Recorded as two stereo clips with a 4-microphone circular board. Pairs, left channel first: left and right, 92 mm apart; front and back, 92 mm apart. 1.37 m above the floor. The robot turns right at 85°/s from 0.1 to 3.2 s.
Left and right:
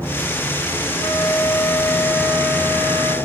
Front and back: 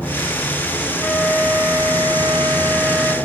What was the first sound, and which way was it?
A flute, 80° left.